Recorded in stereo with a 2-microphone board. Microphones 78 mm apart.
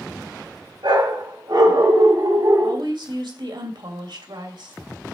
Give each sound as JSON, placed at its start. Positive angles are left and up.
{"t": 0.8, "sound": "a dog barking", "side_deg": -80, "distance_m": 4.0}
{"t": 2.6, "sound": "a woman speaking", "side_deg": -75, "distance_m": 2.5}